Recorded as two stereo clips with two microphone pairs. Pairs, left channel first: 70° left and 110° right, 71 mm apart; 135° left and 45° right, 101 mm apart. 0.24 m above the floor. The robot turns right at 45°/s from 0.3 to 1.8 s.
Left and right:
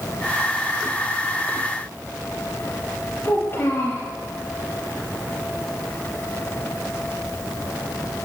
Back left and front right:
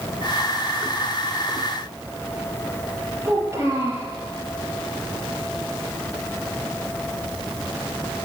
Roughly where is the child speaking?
Ahead.